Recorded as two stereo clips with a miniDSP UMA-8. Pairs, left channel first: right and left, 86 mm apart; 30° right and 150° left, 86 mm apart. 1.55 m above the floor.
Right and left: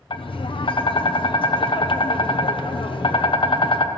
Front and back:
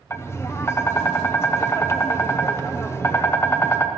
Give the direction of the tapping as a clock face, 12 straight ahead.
3 o'clock.